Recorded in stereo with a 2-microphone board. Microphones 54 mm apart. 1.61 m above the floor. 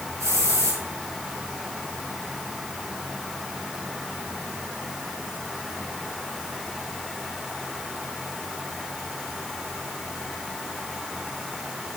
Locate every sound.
0.2 s a hiss: 65° right (ahead or behind), 4 m